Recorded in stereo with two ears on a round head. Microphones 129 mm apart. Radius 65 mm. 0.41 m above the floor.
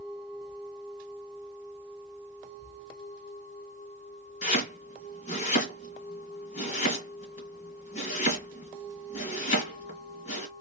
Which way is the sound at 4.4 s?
50° left (ahead or behind).